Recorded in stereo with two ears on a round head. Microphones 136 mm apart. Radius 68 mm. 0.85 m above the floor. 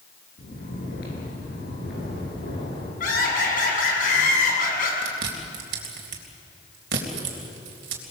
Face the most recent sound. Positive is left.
turn(degrees=-80)